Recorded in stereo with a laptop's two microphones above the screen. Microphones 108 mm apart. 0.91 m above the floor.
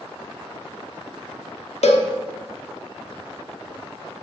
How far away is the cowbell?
About 0.9 m.